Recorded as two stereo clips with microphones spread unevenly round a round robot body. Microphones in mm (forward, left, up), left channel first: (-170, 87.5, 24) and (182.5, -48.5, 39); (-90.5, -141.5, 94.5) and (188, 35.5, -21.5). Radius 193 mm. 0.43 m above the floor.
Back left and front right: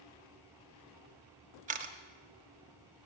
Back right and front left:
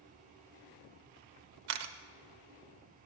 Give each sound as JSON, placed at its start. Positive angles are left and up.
{"t": 1.7, "sound": "a camera shutter", "azimuth_deg": 50, "distance_m": 0.7}